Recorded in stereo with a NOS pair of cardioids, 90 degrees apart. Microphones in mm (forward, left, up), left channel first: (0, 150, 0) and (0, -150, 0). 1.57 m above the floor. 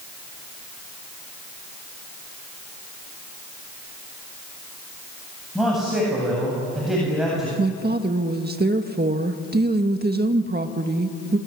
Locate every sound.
5.5 s a man speaking: straight ahead, 9 m
7.6 s a woman speaking: 35° right, 1.7 m